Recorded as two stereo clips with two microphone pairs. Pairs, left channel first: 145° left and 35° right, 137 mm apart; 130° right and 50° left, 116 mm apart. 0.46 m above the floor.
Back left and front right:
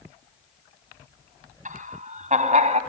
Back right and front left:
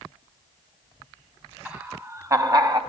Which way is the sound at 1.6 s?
25° right.